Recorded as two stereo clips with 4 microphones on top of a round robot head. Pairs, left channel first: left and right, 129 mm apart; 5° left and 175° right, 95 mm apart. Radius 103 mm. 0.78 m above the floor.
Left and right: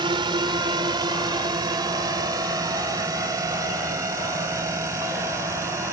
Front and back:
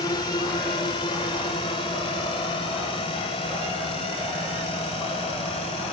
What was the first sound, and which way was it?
A drone, 40° right.